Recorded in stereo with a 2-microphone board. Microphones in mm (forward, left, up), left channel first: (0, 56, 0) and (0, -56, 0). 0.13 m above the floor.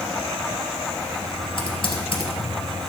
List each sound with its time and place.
1.6 s typing on a keyboard: 50° left (ahead or behind), 2.5 m